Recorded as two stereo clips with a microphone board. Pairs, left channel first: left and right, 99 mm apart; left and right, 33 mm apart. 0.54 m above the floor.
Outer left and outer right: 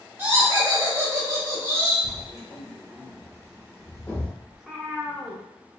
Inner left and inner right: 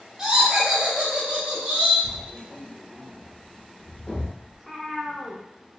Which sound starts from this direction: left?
Writing, at 2.0 s.